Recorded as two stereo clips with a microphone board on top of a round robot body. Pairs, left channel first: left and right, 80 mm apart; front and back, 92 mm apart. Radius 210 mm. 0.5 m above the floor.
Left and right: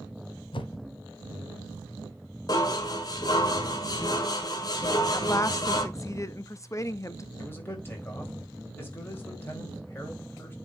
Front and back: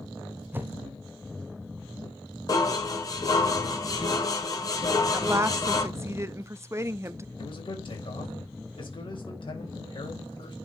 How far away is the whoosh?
About 1.1 m.